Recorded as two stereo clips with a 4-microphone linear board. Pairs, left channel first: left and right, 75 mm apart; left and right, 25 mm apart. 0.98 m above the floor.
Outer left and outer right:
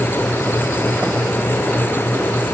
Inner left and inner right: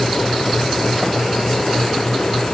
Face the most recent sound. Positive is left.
No sound to turn to.